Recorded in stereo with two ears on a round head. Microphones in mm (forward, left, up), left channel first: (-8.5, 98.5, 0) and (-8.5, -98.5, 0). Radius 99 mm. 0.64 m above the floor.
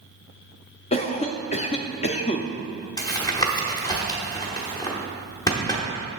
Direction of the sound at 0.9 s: 30° left (ahead or behind).